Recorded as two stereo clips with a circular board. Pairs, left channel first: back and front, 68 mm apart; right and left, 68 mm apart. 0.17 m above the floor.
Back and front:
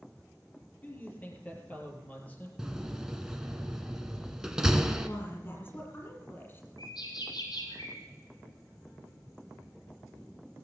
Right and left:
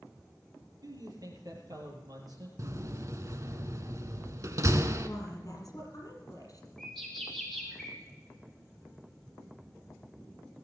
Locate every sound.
0.8 s a man speaking: 115° left, 4.5 m
2.6 s a door slam: 80° left, 1.0 m
5.0 s a woman speaking: 125° right, 5.5 m
6.8 s a bird: 170° right, 5 m